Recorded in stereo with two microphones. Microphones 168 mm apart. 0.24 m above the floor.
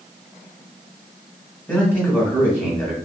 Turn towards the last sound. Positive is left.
turn(degrees=10)  # may be behind; listen again after turning